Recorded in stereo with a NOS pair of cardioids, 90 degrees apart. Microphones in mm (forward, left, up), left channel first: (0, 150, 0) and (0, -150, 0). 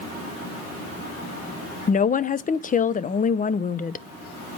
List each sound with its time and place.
1.9 s a woman speaking: 30° left, 0.6 m